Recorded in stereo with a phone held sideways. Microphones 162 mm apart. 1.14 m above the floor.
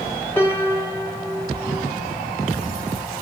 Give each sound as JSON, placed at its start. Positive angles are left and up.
{"t": 0.4, "sound": "a piano", "side_deg": 15, "distance_m": 3.0}